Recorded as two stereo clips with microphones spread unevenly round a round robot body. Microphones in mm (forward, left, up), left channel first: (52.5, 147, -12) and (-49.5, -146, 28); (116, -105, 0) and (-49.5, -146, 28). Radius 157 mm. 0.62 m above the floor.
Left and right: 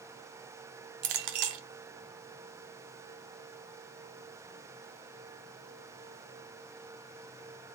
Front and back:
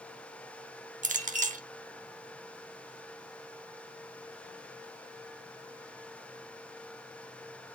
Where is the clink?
120° right, 1.3 m.